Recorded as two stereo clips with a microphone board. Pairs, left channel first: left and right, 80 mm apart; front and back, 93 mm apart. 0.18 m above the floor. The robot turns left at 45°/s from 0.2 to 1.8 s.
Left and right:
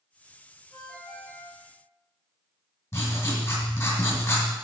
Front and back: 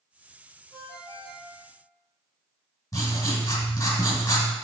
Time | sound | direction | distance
0.7 | a ringtone | 165° right | 4 m
2.9 | writing | 50° left | 2.5 m